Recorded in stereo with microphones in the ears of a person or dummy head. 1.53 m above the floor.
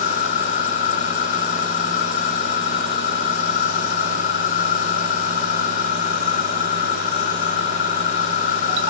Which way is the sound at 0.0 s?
45° left (ahead or behind).